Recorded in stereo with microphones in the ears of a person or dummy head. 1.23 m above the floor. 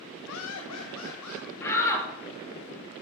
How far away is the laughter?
About 0.6 m.